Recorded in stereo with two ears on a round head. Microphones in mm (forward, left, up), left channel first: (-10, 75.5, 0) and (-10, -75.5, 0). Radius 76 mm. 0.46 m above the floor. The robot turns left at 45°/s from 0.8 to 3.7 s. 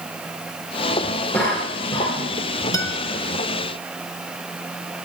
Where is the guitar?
20° left (ahead or behind), 1.0 m; by 3.0 s 10° left (ahead or behind), 1.0 m.